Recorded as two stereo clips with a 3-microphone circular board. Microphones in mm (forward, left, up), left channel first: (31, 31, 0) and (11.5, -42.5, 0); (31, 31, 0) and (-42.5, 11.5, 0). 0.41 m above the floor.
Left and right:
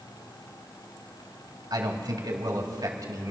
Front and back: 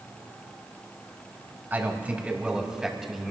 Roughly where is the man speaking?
Right.